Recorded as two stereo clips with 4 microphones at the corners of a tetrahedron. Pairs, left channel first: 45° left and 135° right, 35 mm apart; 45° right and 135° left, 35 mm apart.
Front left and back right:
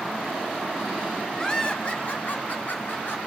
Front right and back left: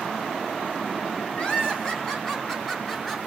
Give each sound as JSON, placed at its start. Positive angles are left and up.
{"t": 1.4, "sound": "laughter", "azimuth_deg": -15, "distance_m": 1.7}